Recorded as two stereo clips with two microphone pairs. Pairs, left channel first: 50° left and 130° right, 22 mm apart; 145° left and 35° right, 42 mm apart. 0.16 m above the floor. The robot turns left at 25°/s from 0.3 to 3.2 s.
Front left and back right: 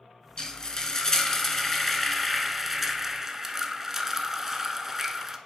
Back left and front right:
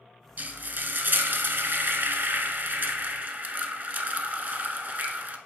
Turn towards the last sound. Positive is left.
turn(degrees=-70)